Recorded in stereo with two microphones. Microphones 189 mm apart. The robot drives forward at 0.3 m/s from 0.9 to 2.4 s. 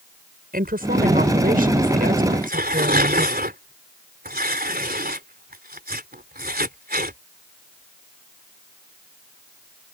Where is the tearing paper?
50° right (ahead or behind).